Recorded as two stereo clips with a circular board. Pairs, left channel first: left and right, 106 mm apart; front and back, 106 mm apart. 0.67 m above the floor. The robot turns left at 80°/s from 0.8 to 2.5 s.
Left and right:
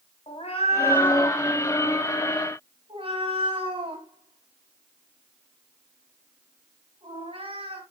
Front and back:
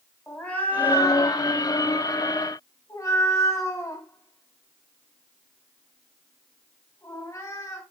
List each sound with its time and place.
0.3 s a cat meowing: 75° left, 3 m; by 7.8 s 60° right, 3 m